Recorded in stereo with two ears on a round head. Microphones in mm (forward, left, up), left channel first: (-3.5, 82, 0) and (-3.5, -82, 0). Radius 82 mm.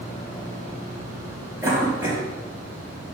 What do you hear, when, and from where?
1.6 s a cough: 15° right (ahead or behind), 4 m